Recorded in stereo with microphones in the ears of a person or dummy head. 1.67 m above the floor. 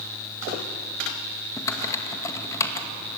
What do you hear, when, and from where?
1.6 s typing on a keyboard: 30° left (ahead or behind), 2 m